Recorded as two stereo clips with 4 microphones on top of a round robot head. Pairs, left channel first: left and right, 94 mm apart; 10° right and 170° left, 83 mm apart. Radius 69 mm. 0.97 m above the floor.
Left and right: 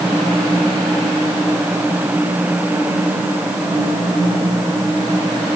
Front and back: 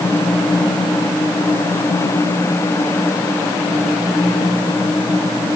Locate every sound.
Only background noise.